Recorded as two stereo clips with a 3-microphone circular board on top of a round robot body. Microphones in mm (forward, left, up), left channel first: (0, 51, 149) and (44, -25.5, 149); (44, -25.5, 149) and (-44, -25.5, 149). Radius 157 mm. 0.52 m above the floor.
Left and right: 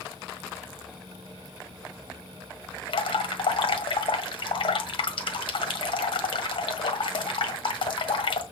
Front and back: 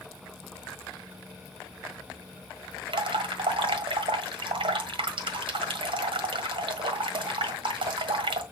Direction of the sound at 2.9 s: 150° left.